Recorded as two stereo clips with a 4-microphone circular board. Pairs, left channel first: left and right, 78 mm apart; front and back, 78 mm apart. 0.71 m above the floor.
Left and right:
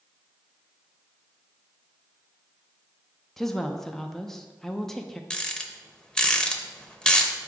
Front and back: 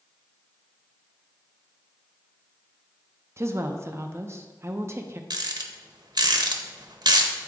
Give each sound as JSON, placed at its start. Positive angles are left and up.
{"t": 3.4, "sound": "a woman speaking", "azimuth_deg": 175, "distance_m": 0.6}
{"t": 5.3, "sound": "a rattle", "azimuth_deg": 170, "distance_m": 0.7}